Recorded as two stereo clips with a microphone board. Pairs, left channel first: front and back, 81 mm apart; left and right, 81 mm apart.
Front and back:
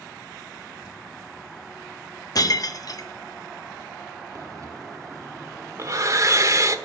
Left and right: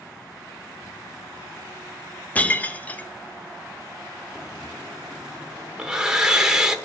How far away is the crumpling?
About 3 m.